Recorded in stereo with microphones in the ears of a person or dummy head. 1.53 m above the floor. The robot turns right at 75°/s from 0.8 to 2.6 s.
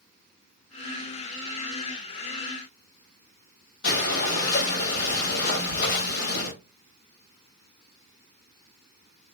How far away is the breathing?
About 1.5 m.